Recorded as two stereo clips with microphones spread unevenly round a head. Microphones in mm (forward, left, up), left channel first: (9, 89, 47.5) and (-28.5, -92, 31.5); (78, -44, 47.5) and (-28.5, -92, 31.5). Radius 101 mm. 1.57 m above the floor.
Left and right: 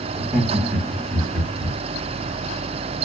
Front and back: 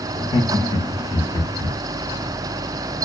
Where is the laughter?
25° right, 0.9 m.